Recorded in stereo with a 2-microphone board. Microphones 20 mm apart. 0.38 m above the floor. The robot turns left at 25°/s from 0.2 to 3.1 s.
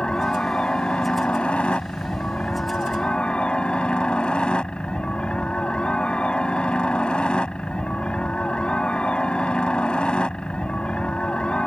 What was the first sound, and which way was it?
A helicopter, 135° left.